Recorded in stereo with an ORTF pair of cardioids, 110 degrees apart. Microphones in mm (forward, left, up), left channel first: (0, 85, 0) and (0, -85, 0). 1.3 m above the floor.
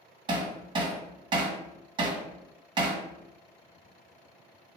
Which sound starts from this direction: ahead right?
Hammering, at 0.3 s.